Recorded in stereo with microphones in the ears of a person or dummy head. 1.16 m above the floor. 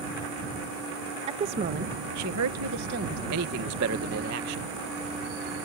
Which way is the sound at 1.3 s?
25° right (ahead or behind).